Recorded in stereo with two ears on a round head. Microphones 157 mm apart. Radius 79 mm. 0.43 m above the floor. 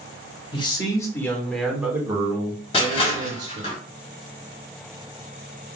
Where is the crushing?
35° left (ahead or behind), 2.5 m.